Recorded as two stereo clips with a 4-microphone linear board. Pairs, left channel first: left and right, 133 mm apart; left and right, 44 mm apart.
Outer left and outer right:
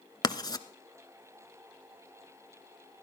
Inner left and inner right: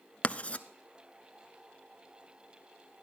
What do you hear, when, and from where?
0.2 s writing: 30° left (ahead or behind), 0.8 m